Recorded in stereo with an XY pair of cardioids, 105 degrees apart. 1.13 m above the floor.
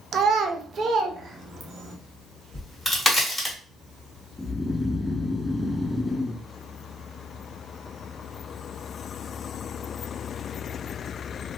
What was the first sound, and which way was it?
A child speaking, 60° right.